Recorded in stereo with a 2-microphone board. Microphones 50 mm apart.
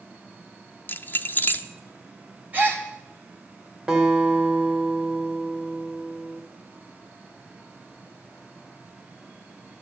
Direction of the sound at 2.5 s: 30° right (ahead or behind).